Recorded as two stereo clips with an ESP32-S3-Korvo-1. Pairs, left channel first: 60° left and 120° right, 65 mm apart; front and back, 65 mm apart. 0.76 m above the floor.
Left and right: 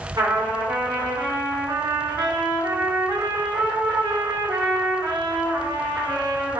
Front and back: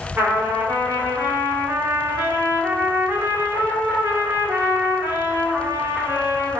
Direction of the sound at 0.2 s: 120° right.